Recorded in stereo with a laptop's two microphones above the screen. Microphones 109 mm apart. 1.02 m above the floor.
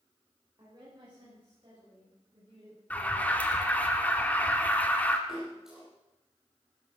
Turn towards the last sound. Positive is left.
turn(degrees=-5)  # may be behind; listen again after turning